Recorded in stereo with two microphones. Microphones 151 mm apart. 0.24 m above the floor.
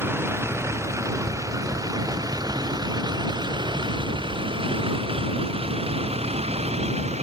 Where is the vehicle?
15° right (ahead or behind); by 7.2 s 45° right (ahead or behind).